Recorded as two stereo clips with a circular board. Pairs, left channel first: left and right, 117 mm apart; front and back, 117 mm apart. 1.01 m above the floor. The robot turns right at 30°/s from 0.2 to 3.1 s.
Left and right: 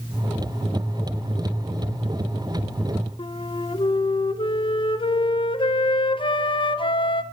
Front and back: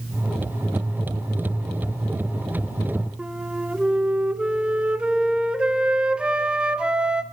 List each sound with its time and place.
3.2 s a flute: 100° left, 0.5 m